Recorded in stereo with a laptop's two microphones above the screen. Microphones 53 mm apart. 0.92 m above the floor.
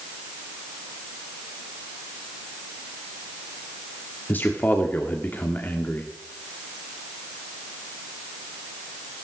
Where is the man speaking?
35° left (ahead or behind), 1.9 m.